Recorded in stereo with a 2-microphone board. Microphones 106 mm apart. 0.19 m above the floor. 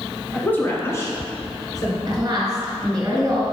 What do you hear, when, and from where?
0.3 s a woman speaking: 10° left (ahead or behind), 1.5 m; by 2.0 s 40° left (ahead or behind), 3 m
2.1 s a woman speaking: 35° right (ahead or behind), 2 m